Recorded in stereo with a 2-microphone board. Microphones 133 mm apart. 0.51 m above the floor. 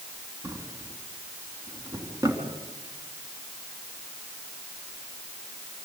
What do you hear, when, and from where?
0.4 s a drawer: 25° right (ahead or behind), 3.5 m